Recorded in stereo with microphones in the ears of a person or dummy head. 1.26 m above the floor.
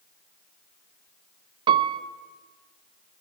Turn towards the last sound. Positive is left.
turn(degrees=-30)  # may be behind; listen again after turning